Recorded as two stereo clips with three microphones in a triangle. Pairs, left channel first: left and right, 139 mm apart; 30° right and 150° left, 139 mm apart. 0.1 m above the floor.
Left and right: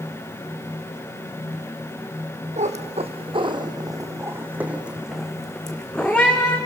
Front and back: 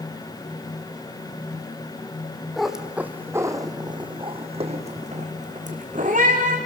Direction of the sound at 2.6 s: 120° right.